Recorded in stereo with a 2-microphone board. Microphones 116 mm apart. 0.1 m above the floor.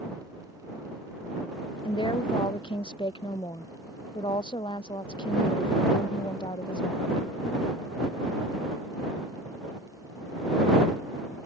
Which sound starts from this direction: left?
A woman speaking, at 1.9 s.